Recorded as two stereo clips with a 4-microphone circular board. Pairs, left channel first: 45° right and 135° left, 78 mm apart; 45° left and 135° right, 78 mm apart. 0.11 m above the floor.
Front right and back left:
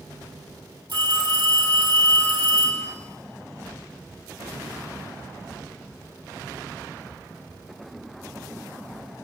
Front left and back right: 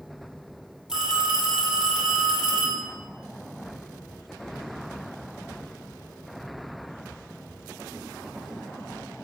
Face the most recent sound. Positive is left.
turn(degrees=145)